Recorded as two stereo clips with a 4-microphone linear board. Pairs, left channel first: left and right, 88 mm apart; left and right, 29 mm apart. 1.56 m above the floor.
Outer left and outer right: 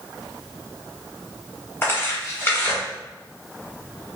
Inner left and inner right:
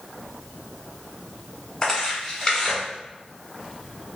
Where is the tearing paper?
25° left (ahead or behind), 1.3 m.